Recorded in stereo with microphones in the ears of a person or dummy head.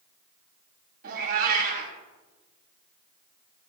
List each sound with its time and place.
1.0 s a cat meowing: 55° right (ahead or behind), 2.5 m